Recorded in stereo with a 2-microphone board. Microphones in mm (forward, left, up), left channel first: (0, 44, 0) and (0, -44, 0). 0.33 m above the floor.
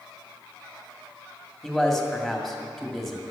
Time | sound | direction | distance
1.6 | a man speaking | centre (ahead or behind) | 2.5 m